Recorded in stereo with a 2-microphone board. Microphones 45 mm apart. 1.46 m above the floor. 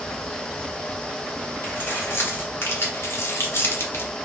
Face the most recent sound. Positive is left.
turn(degrees=60)  # may be behind; listen again after turning